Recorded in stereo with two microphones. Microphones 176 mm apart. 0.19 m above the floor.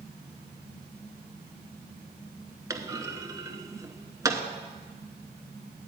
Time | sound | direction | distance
2.7 | a clunk | 20° right (ahead or behind) | 0.8 m